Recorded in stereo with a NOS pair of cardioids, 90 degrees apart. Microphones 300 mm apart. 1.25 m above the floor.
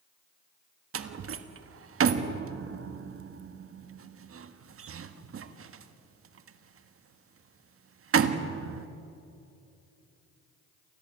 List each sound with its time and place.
0.9 s a door slam: 45° right, 1.5 m